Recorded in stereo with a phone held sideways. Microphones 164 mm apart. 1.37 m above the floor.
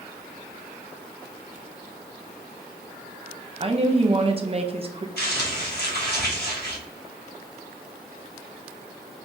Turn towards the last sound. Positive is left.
turn(degrees=85)